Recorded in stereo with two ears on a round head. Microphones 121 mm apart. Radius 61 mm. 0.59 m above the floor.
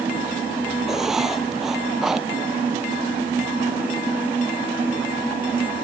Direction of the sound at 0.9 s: 5° right (ahead or behind).